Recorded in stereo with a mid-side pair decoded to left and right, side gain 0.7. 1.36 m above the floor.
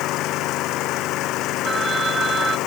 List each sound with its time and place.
0.0 s an engine running: 55° left
1.6 s a phone ringing: 20° right